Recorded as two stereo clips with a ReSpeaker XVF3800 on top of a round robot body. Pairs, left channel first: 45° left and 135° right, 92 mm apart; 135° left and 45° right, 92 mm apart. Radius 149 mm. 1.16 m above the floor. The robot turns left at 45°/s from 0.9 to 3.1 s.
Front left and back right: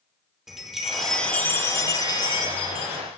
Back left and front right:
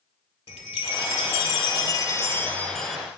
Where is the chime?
140° left, 1.9 m; by 3.0 s 40° left, 1.9 m.